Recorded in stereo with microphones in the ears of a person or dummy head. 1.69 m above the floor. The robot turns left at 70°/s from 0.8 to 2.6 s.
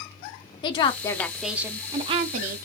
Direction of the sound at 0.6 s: 40° left.